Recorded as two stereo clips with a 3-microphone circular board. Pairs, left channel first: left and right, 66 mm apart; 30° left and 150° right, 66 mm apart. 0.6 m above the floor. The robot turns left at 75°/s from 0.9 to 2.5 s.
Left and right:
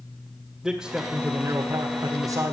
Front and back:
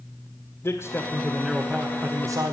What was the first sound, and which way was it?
A man speaking, 10° right.